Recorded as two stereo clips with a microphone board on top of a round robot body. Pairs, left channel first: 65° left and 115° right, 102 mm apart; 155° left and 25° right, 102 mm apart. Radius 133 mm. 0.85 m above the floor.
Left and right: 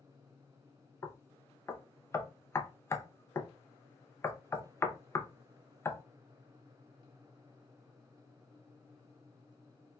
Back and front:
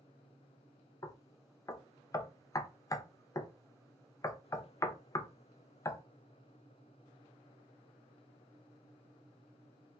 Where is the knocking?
120° left, 0.6 m.